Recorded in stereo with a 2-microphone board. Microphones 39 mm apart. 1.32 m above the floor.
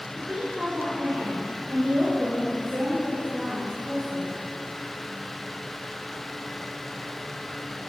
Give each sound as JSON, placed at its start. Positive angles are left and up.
{"t": 0.1, "sound": "a woman speaking", "side_deg": -15, "distance_m": 3.5}